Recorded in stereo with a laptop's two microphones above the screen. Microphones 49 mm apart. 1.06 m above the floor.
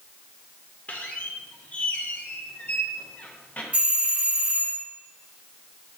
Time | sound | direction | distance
0.9 | a squeak | 30° left (ahead or behind) | 0.6 m
3.7 | a doorbell | 20° right (ahead or behind) | 1.6 m